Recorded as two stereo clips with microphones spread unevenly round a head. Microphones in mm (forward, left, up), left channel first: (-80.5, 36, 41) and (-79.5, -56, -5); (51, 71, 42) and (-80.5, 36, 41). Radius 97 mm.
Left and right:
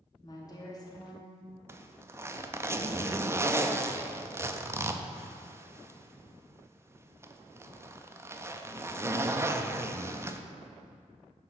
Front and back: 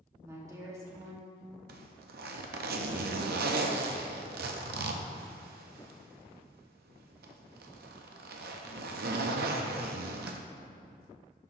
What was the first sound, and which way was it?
A woman speaking, 125° left.